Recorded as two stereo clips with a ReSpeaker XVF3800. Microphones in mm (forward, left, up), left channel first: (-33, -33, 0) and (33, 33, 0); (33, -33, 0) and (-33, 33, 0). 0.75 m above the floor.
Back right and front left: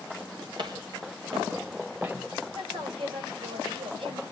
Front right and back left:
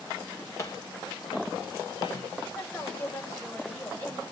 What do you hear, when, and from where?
0.6 s footsteps: 10° left, 2.5 m; by 2.1 s 15° right, 3 m
2.5 s a woman speaking: 25° left, 3.5 m